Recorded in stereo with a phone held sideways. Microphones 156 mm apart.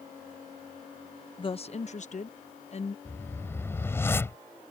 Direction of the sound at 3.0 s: 15° left (ahead or behind).